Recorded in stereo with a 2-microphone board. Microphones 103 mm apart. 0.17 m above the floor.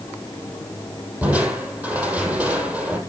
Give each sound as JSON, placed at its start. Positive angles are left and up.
{"t": 1.2, "sound": "crushing", "side_deg": -15, "distance_m": 5.5}